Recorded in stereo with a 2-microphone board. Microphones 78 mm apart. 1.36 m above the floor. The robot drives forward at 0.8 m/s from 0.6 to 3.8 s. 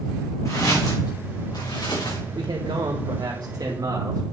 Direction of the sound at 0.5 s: 45° left (ahead or behind).